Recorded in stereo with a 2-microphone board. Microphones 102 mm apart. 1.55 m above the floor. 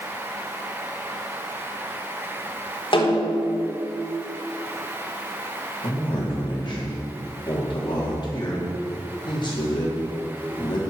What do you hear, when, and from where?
2.9 s a snare drum: 55° left (ahead or behind), 4 m
5.8 s a man speaking: 50° left (ahead or behind), 4 m